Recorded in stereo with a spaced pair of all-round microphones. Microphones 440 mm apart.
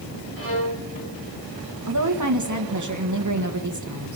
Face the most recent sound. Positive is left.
turn(degrees=-40)  # may be behind; listen again after turning